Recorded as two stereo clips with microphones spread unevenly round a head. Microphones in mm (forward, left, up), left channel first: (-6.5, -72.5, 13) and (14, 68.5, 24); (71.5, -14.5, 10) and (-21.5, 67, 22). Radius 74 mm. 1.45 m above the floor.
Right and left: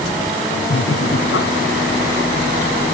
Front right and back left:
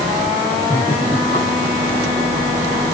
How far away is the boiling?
I don't hear boiling.